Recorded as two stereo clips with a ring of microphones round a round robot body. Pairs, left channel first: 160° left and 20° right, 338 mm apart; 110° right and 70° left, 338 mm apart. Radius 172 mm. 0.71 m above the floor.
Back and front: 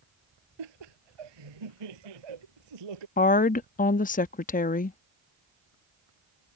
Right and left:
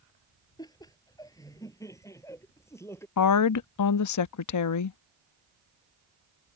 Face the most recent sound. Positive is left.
turn(degrees=-140)